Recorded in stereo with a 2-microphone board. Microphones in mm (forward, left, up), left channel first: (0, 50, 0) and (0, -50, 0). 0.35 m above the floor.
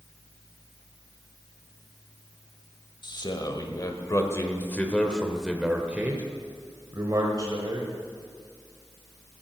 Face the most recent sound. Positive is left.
turn(degrees=-45)  # may be behind; listen again after turning